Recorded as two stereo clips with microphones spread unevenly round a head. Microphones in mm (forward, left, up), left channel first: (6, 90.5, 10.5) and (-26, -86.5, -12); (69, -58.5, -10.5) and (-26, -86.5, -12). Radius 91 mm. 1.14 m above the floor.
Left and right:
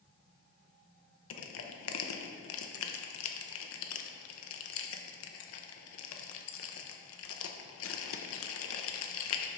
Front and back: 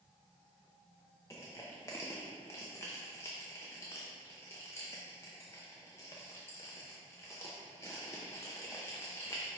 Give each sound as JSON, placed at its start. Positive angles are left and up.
{"t": 1.3, "sound": "crushing", "azimuth_deg": 95, "distance_m": 0.6}